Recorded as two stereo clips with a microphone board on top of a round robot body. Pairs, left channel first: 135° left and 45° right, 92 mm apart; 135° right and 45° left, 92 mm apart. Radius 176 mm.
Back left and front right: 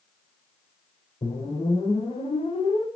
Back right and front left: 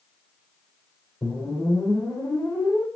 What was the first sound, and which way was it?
A whoosh, 155° left.